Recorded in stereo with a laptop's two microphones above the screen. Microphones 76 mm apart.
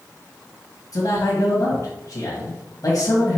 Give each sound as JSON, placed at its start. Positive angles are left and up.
{"t": 0.9, "sound": "a man speaking", "side_deg": 55, "distance_m": 1.6}